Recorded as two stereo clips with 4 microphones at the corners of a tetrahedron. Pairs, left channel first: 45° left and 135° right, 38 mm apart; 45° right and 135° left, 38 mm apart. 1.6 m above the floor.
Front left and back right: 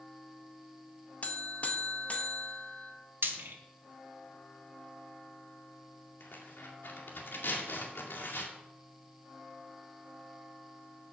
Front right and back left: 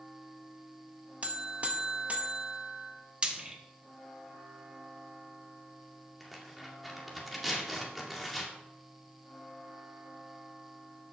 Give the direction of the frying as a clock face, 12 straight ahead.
5 o'clock.